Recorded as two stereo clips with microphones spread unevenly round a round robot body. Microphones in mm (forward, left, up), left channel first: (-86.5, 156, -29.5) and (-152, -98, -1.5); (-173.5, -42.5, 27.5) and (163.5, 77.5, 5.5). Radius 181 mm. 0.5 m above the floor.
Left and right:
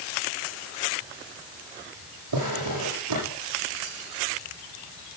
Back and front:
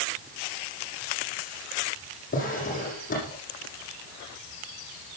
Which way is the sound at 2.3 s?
90° right.